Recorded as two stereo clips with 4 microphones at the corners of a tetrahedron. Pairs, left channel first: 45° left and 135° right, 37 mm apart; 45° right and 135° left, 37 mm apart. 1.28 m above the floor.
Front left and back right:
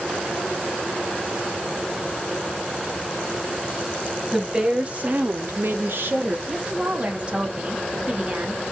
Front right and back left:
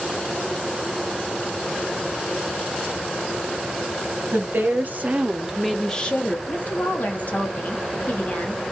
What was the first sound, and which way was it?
A woman speaking, 160° left.